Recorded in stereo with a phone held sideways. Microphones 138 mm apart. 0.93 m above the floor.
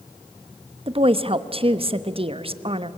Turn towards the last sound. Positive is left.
turn(degrees=-45)  # may be behind; listen again after turning